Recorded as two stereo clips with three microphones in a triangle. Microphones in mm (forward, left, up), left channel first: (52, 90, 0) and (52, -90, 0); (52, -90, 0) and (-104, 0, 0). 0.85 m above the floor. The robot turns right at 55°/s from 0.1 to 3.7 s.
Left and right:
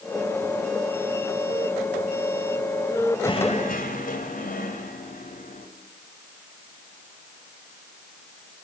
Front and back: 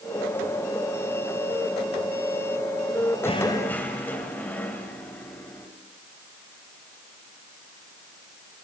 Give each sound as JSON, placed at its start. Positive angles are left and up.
{"t": 3.2, "sound": "knocking", "azimuth_deg": 25, "distance_m": 3.0}